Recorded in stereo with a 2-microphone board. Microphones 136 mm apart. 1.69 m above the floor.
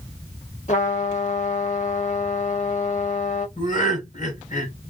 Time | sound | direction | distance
0.7 | a trumpet | 60° left (ahead or behind) | 1.1 m
3.6 | laughter | 65° left (ahead or behind) | 1.6 m